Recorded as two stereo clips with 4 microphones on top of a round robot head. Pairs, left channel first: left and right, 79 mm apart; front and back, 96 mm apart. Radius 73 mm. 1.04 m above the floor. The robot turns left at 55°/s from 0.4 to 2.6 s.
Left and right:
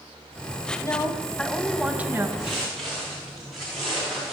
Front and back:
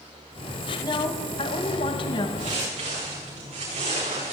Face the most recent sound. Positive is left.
turn(degrees=180)